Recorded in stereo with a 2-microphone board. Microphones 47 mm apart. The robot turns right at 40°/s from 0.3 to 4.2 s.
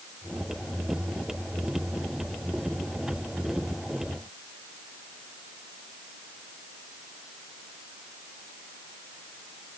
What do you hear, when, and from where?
Only background noise.